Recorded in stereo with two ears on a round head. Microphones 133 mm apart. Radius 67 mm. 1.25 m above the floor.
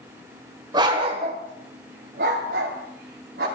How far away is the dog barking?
About 2 m.